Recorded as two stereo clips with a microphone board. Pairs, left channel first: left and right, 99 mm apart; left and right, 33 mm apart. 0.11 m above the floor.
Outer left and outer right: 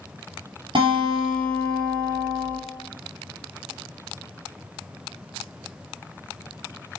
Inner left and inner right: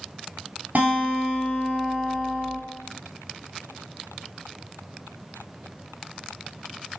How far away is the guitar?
About 1.8 m.